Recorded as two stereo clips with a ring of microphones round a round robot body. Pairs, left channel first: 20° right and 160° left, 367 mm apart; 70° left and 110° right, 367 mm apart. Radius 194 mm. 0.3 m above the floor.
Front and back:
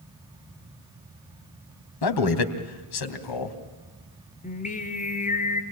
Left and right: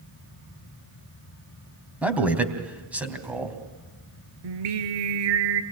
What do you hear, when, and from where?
2.0 s a man speaking: 25° right, 3 m
4.4 s singing: 95° right, 2.5 m